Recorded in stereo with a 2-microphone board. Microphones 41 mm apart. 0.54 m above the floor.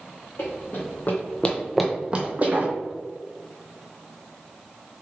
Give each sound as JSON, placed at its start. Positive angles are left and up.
{"t": 0.4, "sound": "running footsteps", "side_deg": 60, "distance_m": 1.4}